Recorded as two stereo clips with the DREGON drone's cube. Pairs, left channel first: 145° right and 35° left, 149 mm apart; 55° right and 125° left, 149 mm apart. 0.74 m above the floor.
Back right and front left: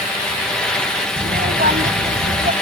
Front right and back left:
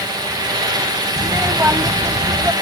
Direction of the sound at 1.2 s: 50° left.